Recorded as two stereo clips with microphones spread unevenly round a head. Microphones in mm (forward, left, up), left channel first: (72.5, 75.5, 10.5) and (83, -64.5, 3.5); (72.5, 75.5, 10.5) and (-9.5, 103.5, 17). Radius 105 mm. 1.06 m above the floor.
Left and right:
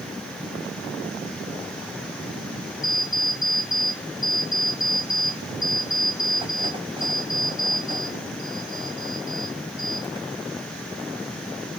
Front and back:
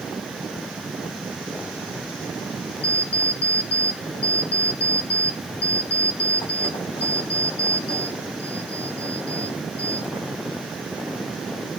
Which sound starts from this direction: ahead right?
An alarm clock, at 2.8 s.